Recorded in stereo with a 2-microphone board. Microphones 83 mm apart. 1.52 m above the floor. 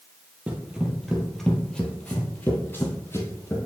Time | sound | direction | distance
0.5 | running footsteps | 15° right (ahead or behind) | 1.6 m